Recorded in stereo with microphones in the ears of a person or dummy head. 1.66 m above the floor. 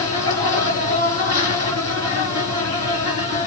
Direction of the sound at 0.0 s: 40° right (ahead or behind).